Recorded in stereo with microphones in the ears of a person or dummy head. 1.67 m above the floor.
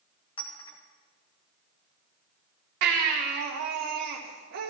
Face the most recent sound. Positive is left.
turn(degrees=-55)  # may be behind; listen again after turning